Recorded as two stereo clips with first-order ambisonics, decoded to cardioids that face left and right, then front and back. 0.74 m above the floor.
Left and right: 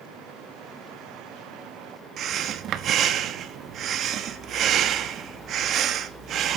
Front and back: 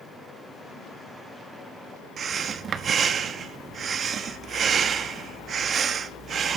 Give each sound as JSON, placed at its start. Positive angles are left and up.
{"t": 2.2, "sound": "breathing", "azimuth_deg": -125, "distance_m": 1.0}